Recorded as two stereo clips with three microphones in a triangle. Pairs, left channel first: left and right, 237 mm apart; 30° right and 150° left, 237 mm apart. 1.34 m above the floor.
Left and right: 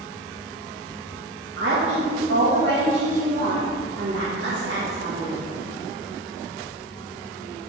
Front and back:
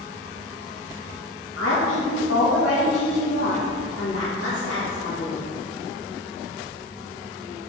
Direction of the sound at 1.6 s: 55° right.